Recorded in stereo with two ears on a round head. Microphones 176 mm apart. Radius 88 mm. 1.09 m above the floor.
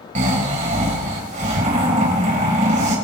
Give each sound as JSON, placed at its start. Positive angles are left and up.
{"t": 0.1, "sound": "snoring", "side_deg": -40, "distance_m": 4.5}